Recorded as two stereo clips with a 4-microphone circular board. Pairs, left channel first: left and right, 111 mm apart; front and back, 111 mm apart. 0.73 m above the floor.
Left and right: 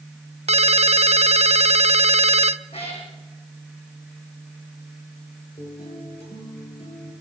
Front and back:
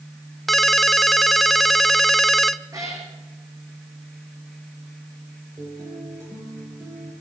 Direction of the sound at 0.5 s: 90° right.